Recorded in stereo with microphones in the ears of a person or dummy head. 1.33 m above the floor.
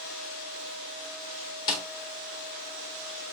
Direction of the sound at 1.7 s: 20° left (ahead or behind).